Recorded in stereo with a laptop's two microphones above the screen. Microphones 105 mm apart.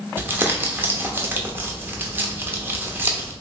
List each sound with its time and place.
0.2 s crumpling: 20° right (ahead or behind), 0.7 m